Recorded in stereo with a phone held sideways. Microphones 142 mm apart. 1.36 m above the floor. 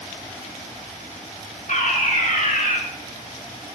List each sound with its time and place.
1.7 s a fire alarm: 70° left (ahead or behind), 5 m